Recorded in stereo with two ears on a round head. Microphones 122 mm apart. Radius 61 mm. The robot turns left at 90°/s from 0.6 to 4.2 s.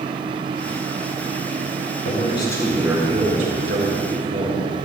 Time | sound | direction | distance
2.0 | a man speaking | 65° left | 4.5 m